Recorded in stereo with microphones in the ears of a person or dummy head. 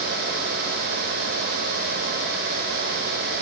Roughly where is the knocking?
I don't hear knocking.